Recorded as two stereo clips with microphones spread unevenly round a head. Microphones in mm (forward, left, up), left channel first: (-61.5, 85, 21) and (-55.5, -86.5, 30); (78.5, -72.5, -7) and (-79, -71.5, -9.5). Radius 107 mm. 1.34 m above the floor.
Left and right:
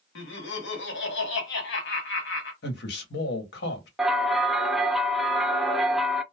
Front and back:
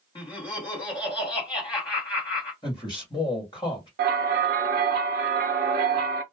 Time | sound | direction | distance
0.1 | laughter | 70° left | 1.2 m
2.6 | a man speaking | 70° left | 1.1 m
4.0 | a bell | 175° right | 0.5 m